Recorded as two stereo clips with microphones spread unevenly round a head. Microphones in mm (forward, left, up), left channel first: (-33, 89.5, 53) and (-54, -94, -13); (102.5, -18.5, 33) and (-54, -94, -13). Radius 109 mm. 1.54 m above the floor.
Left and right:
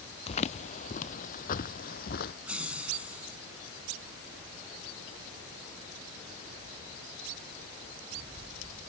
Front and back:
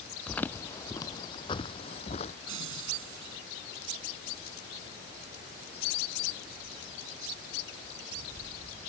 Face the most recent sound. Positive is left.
turn(degrees=180)